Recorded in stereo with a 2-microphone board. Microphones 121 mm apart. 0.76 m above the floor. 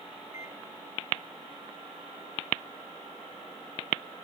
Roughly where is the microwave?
Left.